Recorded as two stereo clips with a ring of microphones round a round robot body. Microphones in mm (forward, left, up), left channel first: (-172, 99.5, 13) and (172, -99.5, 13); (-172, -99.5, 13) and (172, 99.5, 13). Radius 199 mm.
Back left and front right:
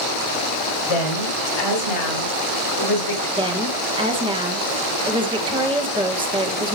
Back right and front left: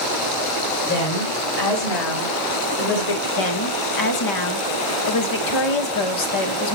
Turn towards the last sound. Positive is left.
turn(degrees=-110)